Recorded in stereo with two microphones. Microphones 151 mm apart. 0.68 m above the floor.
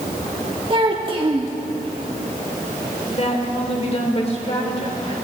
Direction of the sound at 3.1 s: 45° left (ahead or behind).